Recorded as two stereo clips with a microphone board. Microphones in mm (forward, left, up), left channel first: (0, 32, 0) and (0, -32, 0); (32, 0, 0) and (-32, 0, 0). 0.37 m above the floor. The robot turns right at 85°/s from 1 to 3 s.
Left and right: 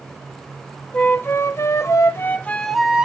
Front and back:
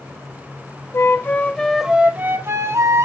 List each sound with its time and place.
0.9 s a flute: 30° left, 1.0 m; by 3.1 s 160° right, 1.0 m